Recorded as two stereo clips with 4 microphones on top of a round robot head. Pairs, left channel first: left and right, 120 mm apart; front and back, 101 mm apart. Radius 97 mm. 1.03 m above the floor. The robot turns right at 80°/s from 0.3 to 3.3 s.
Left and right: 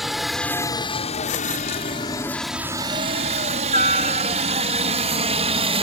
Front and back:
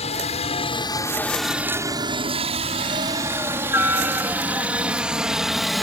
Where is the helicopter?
5° right; by 5.8 s 85° right.